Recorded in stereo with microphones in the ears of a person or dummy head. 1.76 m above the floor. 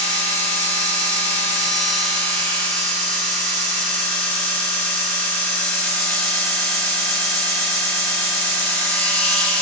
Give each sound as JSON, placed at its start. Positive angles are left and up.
{"t": 0.0, "sound": "a machine running", "side_deg": 10, "distance_m": 8.0}